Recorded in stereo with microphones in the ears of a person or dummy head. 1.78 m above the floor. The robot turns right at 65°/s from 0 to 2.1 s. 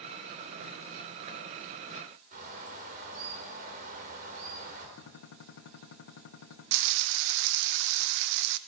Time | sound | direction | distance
2.3 | a bird | 45° right (ahead or behind) | 4 m
5.0 | a gunshot | 70° left (ahead or behind) | 1.5 m
6.7 | frying | 75° right (ahead or behind) | 0.6 m